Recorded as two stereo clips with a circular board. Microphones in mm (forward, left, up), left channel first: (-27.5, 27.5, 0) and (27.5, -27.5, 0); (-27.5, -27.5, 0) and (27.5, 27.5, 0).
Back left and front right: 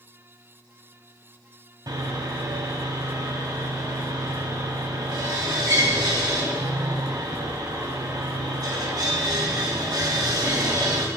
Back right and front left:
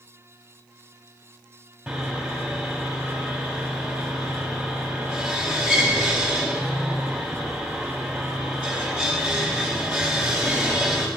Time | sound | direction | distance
1.9 | sawing | 35° right | 1.7 m